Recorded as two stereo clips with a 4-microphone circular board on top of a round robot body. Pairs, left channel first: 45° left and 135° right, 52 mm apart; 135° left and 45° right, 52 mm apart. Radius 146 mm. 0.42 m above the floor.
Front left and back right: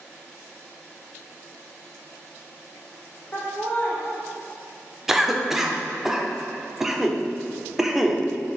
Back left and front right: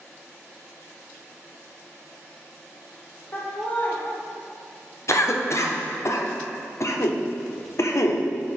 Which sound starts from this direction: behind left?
A cough, at 5.1 s.